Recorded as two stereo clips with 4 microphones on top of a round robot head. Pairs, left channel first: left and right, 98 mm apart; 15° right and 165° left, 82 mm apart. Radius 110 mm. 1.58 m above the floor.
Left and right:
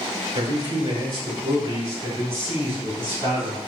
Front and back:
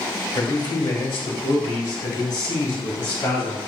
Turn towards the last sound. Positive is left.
turn(degrees=-25)